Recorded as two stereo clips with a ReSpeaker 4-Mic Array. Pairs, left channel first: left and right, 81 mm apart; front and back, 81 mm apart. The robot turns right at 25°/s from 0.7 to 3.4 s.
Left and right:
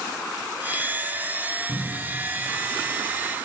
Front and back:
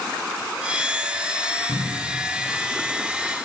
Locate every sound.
1.7 s a cupboard door: 125° right, 9 m; by 2.2 s 115° right, 9 m